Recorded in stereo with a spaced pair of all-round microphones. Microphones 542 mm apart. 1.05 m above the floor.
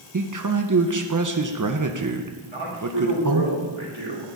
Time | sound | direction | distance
0.1 | a man speaking | 35° right (ahead or behind) | 0.7 m
2.4 | a man speaking | 60° right (ahead or behind) | 3.5 m